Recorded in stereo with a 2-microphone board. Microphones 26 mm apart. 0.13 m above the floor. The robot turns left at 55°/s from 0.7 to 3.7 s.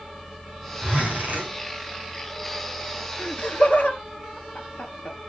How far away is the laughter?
About 2 m.